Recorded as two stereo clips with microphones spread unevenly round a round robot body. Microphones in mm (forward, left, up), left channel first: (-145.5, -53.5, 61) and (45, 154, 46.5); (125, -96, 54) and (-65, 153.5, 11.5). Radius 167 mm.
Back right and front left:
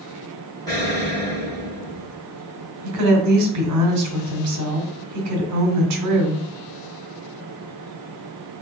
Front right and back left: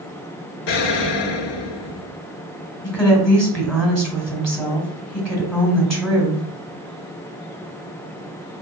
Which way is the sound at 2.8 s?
40° left.